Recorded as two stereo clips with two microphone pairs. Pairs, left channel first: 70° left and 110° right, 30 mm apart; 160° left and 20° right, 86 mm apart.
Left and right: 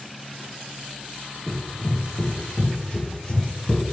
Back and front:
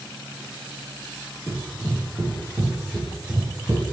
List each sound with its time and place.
1.5 s running footsteps: 140° left, 1.6 m; by 3.8 s 30° left, 1.6 m